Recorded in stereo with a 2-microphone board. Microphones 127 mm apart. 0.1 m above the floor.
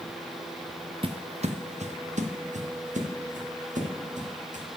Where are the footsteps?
45° right (ahead or behind), 0.6 m; by 4.7 s 80° right, 3 m.